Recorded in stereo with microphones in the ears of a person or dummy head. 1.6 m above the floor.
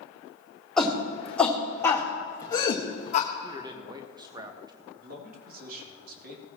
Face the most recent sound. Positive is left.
turn(degrees=-55)  # may be behind; listen again after turning